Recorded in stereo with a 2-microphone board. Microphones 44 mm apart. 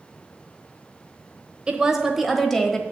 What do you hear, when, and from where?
1.7 s a woman speaking: 25° right (ahead or behind), 1.0 m; by 2.8 s 10° left (ahead or behind), 1.3 m